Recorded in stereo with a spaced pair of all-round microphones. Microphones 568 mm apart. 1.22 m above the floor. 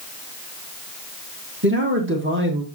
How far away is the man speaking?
About 1.9 m.